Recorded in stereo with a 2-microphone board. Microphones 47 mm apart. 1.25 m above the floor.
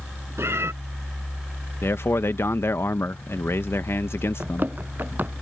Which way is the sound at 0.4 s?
70° right (ahead or behind).